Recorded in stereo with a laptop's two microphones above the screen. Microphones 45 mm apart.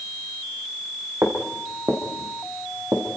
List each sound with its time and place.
1.2 s footsteps: 75° right (ahead or behind), 5 m; by 3.0 s 80° right, 4.5 m